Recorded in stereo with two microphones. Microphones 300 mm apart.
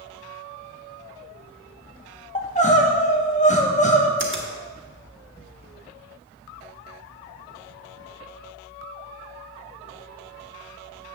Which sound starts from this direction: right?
A finger snap, at 4.2 s.